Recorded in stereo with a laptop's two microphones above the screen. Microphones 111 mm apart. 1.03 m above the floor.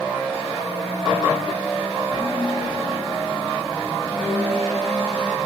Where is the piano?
Centre (ahead or behind), 3 m.